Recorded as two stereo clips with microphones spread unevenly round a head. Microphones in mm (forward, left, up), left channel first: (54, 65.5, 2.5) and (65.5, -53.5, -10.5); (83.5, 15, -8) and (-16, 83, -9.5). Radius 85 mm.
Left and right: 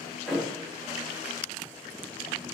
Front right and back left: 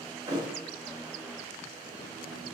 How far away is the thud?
About 0.9 m.